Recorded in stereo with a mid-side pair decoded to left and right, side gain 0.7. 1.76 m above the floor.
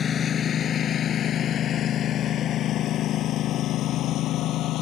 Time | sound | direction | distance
0.0 | a lawn mower | 35° left | ?